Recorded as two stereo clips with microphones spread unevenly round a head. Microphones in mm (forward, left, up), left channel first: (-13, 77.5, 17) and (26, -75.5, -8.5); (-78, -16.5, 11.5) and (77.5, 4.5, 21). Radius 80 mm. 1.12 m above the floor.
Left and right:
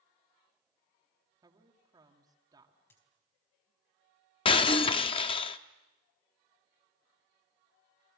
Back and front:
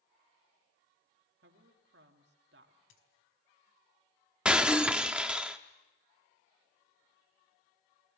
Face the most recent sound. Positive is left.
turn(degrees=85)